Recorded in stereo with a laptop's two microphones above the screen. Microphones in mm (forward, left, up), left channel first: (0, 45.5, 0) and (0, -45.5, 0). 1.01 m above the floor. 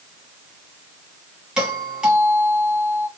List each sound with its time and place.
1.6 s a doorbell: 10° right (ahead or behind), 1.3 m